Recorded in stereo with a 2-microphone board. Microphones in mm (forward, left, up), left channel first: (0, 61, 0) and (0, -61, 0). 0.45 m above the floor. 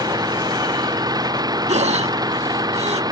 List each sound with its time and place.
0.0 s an engine running: 30° right (ahead or behind)
1.7 s breathing: 70° right (ahead or behind)